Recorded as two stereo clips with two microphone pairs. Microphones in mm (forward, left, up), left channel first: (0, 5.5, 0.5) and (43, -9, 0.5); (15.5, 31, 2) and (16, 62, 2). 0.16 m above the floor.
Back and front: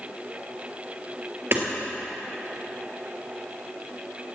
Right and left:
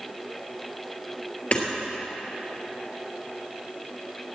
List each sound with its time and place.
1.5 s hammering: 45° right, 3 m